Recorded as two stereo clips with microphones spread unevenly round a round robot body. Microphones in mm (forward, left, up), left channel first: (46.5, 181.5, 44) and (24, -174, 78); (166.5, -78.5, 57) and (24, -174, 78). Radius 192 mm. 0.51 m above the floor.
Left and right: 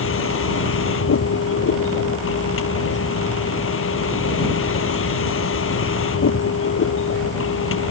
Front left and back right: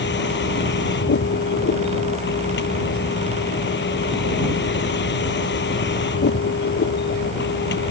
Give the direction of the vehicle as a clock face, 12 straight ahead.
11 o'clock.